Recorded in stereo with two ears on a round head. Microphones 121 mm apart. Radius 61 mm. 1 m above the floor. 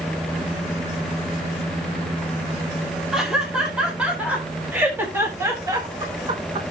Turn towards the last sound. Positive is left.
turn(degrees=-45)  # may be behind; listen again after turning